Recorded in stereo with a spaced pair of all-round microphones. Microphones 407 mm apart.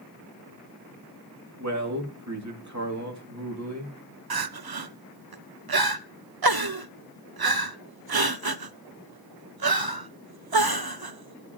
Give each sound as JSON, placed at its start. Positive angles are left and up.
{"t": 1.6, "sound": "a man speaking", "side_deg": -40, "distance_m": 2.5}
{"t": 4.3, "sound": "crying", "side_deg": -60, "distance_m": 0.6}